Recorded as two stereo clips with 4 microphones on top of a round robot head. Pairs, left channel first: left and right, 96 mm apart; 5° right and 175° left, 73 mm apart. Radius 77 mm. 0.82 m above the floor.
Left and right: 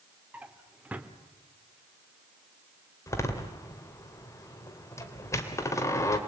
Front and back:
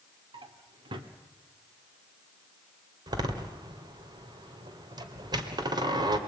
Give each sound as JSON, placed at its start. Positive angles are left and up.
{"t": 0.3, "sound": "a drawer", "azimuth_deg": -165, "distance_m": 1.4}
{"t": 3.1, "sound": "a door slam", "azimuth_deg": 150, "distance_m": 2.0}